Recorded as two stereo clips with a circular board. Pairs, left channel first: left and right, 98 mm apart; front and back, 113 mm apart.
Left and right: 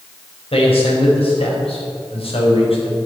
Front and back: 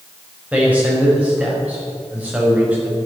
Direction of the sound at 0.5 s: 105° left.